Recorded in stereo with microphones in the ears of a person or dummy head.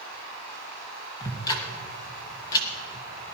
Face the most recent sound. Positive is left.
turn(degrees=20)  # may be behind; listen again after turning